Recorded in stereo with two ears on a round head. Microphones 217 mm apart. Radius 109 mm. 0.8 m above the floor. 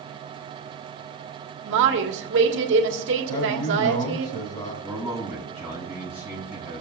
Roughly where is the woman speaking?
Right.